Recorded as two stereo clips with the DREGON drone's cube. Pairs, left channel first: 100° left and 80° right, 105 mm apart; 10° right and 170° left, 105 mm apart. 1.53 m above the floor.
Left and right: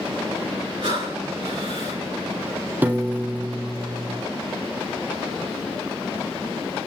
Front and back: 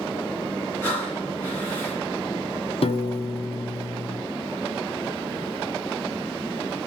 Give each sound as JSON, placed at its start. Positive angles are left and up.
{"t": 0.8, "sound": "breathing", "azimuth_deg": -80, "distance_m": 3.0}
{"t": 2.8, "sound": "a piano", "azimuth_deg": -5, "distance_m": 0.5}